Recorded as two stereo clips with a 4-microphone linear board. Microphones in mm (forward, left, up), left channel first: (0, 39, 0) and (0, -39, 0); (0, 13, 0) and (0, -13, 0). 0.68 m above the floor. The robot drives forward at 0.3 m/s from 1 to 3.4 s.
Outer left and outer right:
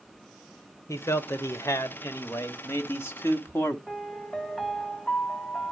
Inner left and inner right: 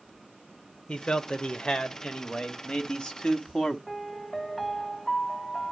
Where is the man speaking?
40° left (ahead or behind), 1.3 m; by 3.8 s 30° left (ahead or behind), 1.6 m.